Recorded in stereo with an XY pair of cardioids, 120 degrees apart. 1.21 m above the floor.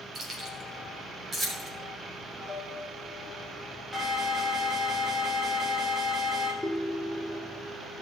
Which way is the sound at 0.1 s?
35° right.